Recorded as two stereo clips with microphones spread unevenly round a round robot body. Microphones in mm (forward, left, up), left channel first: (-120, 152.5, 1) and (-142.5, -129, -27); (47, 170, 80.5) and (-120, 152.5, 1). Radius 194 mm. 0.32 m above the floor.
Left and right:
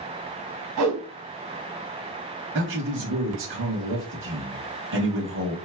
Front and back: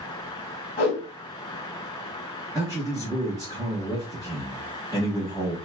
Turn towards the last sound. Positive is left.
turn(degrees=-125)